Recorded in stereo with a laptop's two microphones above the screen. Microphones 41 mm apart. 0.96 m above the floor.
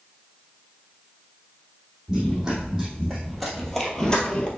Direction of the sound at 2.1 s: 15° right (ahead or behind).